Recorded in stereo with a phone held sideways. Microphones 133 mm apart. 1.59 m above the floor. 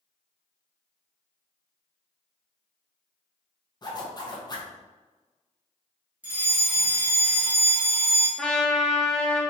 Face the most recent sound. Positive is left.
turn(degrees=5)  # may be behind; listen again after turning